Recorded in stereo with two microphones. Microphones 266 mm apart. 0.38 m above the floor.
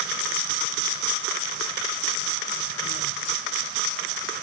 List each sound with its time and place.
Only background noise.